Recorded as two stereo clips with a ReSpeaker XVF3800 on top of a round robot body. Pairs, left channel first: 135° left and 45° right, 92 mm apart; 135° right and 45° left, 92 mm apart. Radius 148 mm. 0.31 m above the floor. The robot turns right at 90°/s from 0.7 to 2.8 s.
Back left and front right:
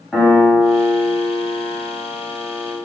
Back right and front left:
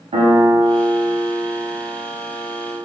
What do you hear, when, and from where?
0.1 s a piano: 50° left, 0.8 m; by 2.8 s 125° right, 0.8 m